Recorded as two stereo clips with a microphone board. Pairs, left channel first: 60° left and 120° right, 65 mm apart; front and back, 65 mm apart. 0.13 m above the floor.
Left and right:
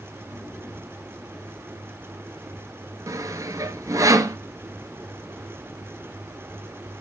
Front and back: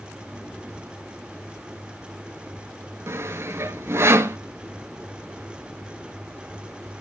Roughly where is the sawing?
Behind right.